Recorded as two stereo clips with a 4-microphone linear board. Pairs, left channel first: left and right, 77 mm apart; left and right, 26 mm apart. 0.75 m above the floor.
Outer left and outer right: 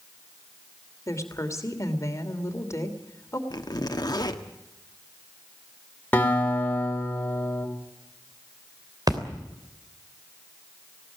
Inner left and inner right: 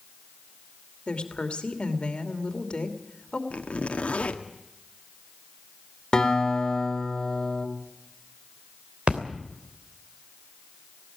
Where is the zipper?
55° left (ahead or behind), 1.4 m.